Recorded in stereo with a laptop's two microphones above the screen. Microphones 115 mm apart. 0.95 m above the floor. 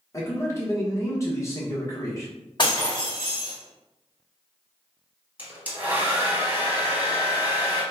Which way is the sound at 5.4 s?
15° right (ahead or behind).